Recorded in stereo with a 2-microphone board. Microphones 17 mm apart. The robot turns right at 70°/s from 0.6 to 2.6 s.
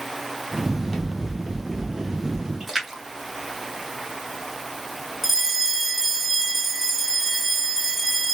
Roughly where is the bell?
Centre.